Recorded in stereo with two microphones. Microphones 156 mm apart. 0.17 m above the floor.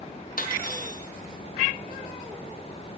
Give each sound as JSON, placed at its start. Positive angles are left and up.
{"t": 0.4, "sound": "cutlery clinking", "side_deg": 65, "distance_m": 3.0}